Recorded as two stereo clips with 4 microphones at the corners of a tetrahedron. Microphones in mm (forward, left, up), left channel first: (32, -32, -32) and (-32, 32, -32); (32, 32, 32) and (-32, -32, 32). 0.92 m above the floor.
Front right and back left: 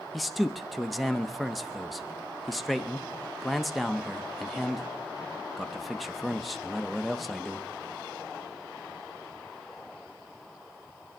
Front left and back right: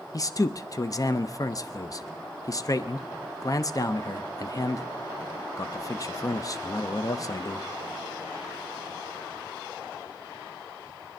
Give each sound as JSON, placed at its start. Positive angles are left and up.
{"t": 0.1, "sound": "a man speaking", "azimuth_deg": 45, "distance_m": 0.8}